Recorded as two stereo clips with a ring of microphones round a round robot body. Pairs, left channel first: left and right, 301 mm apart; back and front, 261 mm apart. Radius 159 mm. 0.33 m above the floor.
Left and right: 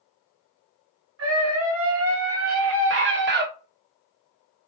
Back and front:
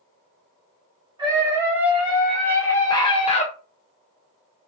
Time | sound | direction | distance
1.2 | a scream | 70° right | 1.7 m